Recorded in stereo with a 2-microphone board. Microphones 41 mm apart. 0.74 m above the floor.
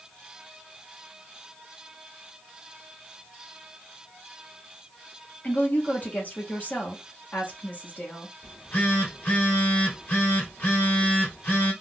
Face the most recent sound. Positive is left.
turn(degrees=50)  # may be behind; listen again after turning